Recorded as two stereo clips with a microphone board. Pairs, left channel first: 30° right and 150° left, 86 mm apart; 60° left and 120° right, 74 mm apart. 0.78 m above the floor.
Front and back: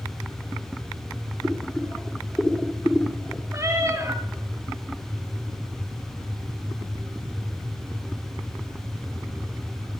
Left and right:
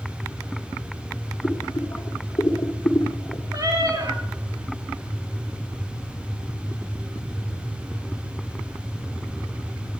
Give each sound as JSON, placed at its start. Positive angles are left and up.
{"t": 1.4, "sound": "boiling", "azimuth_deg": 50, "distance_m": 1.8}
{"t": 3.5, "sound": "a cat meowing", "azimuth_deg": -150, "distance_m": 3.5}